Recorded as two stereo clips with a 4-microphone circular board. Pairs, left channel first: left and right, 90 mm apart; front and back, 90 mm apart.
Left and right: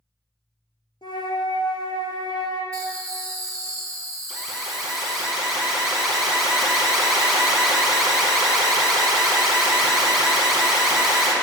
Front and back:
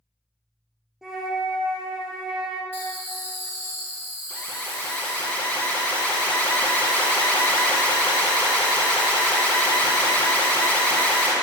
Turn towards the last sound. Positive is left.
turn(degrees=-10)